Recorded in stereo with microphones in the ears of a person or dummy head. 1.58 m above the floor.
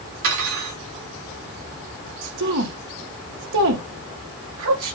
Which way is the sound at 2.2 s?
65° right (ahead or behind).